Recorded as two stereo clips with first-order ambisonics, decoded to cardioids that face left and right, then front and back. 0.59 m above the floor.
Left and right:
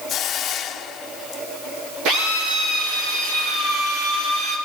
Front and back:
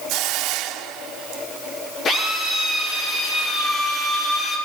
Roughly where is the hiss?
Behind left.